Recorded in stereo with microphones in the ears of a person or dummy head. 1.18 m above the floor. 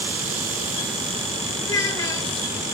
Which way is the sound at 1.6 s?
15° left (ahead or behind).